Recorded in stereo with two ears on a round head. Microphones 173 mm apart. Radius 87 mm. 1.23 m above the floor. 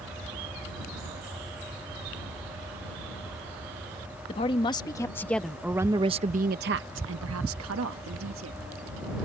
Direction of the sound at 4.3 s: 30° left (ahead or behind).